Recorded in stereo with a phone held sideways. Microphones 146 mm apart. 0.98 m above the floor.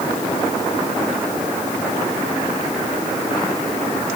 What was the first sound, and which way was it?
Only background noise.